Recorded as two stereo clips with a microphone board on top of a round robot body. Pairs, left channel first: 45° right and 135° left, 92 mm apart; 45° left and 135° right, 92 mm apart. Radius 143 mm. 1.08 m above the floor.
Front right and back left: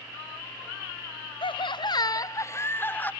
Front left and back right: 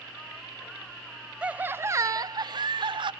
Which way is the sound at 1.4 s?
60° right.